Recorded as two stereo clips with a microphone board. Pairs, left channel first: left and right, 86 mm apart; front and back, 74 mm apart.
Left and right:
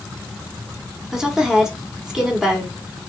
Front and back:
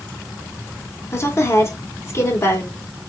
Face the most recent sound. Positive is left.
turn(degrees=-10)